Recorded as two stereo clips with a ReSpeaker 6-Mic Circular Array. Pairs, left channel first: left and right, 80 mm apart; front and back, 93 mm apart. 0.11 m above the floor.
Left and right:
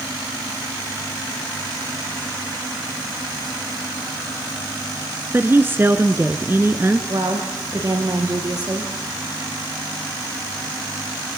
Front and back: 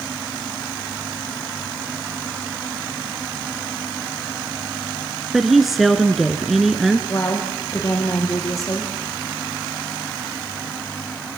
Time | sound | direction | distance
5.3 | a woman speaking | 95° right | 1.5 m
7.1 | a woman speaking | 55° right | 8 m